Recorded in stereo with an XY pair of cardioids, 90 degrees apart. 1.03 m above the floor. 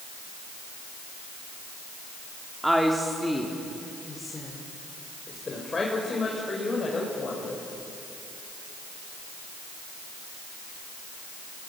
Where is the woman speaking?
10° right, 2.5 m; by 7.6 s 40° left, 6 m.